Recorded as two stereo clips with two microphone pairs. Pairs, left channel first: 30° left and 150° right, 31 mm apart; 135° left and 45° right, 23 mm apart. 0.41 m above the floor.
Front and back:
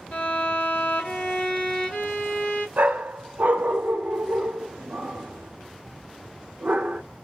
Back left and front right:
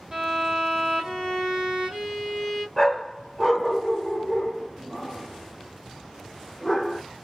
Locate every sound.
0.1 s a violin: straight ahead, 1.7 m
2.8 s a dog barking: 140° right, 0.9 m